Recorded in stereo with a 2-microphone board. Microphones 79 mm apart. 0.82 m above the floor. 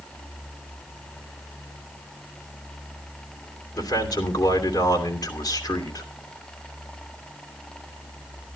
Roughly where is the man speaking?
Left.